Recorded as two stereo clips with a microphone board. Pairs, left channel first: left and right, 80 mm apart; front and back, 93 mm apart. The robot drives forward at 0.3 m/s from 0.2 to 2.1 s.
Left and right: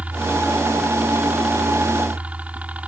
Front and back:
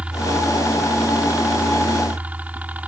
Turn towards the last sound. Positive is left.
turn(degrees=-130)